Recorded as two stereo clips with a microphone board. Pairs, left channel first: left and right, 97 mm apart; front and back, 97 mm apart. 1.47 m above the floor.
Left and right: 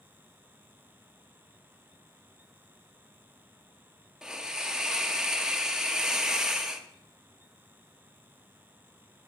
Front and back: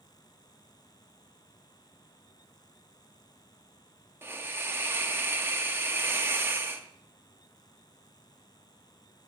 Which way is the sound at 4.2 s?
165° right.